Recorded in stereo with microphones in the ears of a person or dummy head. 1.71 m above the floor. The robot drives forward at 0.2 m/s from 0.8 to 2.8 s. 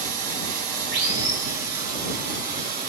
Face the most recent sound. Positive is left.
turn(degrees=-40)  # may be behind; listen again after turning